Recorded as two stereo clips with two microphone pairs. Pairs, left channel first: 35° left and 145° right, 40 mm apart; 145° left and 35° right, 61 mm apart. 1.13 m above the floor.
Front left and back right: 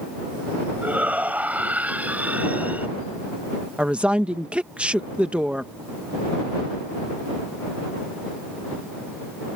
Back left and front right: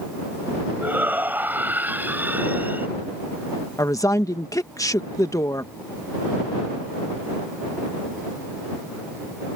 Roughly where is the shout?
Right.